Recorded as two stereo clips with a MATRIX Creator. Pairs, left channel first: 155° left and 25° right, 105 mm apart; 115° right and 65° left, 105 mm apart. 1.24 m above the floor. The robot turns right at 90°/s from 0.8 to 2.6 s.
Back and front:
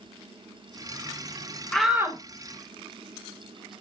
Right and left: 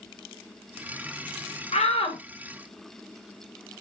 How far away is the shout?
About 1.1 m.